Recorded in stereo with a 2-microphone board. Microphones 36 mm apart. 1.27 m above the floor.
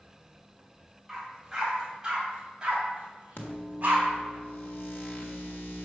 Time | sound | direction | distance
1.1 | a dog barking | 5° right (ahead or behind) | 2 m
3.4 | a microwave | 80° left | 1.4 m